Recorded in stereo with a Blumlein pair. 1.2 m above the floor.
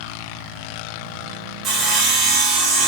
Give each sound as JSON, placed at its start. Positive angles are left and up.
{"t": 1.6, "sound": "sawing", "azimuth_deg": -30, "distance_m": 0.8}